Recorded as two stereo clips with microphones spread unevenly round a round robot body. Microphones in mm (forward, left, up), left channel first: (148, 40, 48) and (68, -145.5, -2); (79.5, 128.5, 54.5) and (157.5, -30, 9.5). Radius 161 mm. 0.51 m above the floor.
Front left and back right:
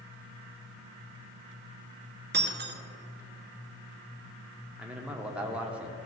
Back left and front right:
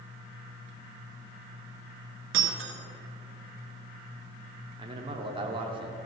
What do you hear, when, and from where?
2.3 s breaking glass: 75° right, 1.4 m
4.8 s a man speaking: 50° right, 1.0 m